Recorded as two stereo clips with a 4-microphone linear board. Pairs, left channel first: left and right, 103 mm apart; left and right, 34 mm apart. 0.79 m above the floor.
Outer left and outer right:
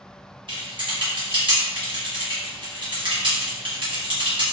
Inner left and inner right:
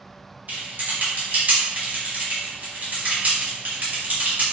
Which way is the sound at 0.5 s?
50° right (ahead or behind).